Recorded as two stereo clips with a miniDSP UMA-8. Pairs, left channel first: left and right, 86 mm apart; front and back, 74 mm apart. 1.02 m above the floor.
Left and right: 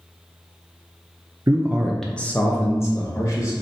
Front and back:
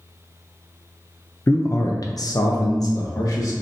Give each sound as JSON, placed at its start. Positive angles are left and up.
{"t": 1.5, "sound": "a man speaking", "azimuth_deg": -55, "distance_m": 0.5}